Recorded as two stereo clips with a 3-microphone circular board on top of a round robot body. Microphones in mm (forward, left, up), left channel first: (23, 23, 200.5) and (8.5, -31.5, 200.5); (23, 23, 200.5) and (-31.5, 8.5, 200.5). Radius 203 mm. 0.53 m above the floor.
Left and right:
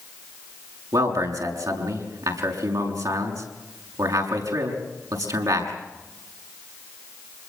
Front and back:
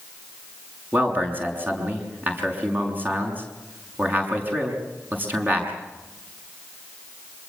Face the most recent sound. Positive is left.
turn(degrees=-110)